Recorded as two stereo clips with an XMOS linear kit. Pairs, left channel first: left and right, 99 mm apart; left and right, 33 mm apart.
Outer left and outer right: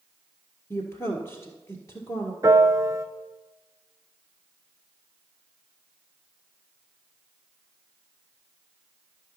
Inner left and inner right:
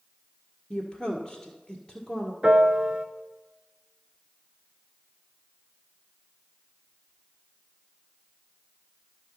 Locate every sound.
0.7 s a woman speaking: 35° left (ahead or behind), 1.6 m
2.4 s a piano: 35° right (ahead or behind), 0.7 m